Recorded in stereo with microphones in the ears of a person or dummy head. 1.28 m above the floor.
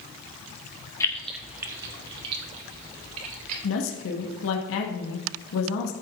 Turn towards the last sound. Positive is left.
turn(degrees=80)